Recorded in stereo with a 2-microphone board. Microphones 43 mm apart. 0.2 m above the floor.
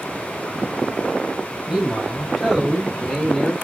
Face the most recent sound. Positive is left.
turn(degrees=10)  # may be behind; listen again after turning